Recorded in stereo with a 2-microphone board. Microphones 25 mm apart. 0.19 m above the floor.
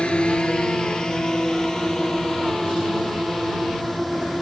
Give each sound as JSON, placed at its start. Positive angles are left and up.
{"t": 0.0, "sound": "a drone", "side_deg": 40}